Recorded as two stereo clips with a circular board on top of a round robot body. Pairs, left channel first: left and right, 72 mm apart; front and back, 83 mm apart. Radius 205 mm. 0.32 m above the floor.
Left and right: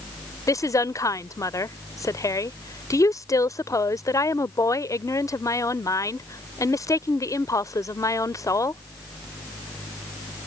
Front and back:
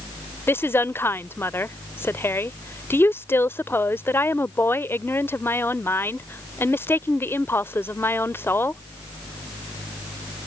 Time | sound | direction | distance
0.5 | a woman speaking | 60° left | ?